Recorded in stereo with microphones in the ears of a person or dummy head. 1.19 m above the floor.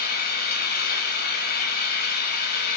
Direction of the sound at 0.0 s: 50° left (ahead or behind).